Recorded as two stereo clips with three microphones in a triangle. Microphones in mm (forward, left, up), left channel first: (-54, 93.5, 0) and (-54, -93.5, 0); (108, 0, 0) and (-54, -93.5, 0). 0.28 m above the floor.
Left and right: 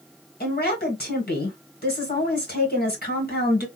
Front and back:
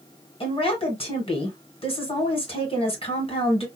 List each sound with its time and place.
0.4 s a woman speaking: 80° left, 1.7 m